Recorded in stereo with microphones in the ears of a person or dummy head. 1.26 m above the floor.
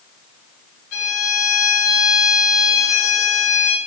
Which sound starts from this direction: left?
A violin, at 0.9 s.